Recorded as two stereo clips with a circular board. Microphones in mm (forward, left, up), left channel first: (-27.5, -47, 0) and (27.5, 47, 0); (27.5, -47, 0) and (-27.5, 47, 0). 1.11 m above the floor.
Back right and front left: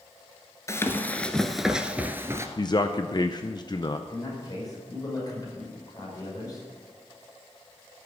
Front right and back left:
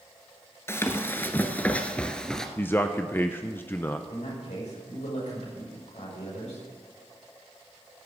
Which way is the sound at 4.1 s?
65° right.